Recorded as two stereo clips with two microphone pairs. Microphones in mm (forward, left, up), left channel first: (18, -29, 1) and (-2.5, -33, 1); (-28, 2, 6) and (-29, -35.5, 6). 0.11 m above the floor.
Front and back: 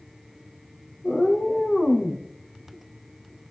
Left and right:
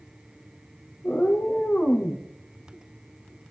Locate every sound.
1.0 s a cat meowing: 50° left, 3 m